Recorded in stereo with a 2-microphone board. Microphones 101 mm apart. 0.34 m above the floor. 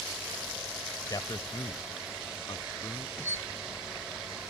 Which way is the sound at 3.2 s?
25° left (ahead or behind).